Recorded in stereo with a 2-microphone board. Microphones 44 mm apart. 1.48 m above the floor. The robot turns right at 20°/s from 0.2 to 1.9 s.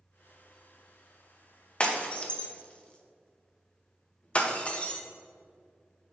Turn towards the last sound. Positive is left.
turn(degrees=25)  # may be behind; listen again after turning